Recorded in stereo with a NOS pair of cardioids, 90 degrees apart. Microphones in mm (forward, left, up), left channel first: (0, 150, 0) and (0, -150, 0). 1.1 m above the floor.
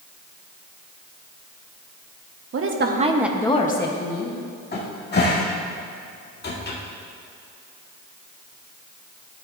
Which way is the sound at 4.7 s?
30° left.